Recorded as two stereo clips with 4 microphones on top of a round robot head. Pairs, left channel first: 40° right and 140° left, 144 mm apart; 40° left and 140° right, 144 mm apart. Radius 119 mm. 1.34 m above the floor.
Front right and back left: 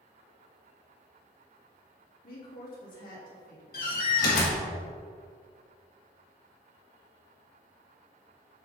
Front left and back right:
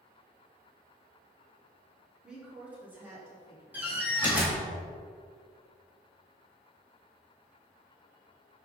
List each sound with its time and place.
2.2 s a woman speaking: 55° right, 3 m; by 4.7 s 80° right, 3 m
3.7 s a door slam: 60° right, 1.9 m